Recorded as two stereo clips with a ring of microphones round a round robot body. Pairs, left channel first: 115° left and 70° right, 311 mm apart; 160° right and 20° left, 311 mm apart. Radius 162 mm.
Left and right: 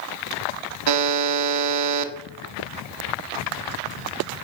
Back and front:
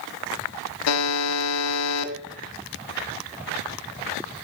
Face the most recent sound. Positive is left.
turn(degrees=-110)